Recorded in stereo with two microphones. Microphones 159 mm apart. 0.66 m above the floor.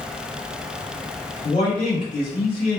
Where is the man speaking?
50° left (ahead or behind), 1.9 m.